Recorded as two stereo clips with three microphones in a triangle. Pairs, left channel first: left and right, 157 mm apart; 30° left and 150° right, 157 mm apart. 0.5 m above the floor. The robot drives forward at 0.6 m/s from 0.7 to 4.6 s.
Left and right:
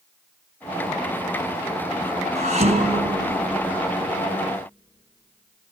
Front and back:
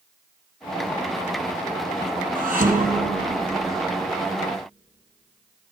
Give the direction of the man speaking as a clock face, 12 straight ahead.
I don't hear a man speaking.